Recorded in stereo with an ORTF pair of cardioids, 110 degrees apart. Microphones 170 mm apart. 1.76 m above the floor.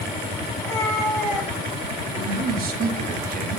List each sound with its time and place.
0.6 s a cat meowing: 20° left, 5.5 m; by 2.0 s straight ahead, 5.5 m
2.1 s a man speaking: 60° right, 3 m